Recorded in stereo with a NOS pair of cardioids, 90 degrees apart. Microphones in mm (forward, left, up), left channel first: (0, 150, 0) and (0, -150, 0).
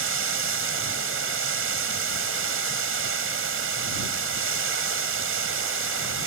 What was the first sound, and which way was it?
Running water, 45° right.